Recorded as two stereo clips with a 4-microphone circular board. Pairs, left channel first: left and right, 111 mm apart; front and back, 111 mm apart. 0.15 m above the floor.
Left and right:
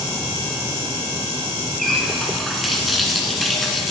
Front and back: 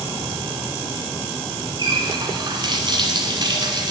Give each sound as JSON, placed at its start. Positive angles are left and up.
{"t": 1.8, "sound": "a running tap", "azimuth_deg": 180, "distance_m": 1.1}